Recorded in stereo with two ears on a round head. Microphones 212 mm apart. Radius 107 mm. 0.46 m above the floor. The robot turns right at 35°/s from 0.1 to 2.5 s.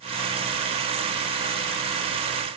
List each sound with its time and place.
Only background noise.